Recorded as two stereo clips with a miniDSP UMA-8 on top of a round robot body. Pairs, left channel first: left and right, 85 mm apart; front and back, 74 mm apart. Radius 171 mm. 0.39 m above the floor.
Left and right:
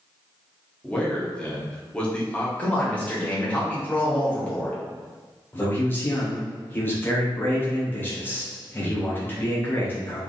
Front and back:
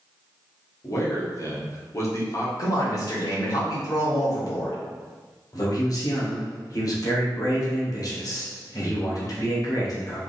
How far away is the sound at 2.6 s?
About 2 m.